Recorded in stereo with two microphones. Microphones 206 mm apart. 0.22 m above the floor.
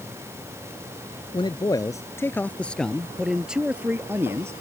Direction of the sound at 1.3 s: 25° left (ahead or behind).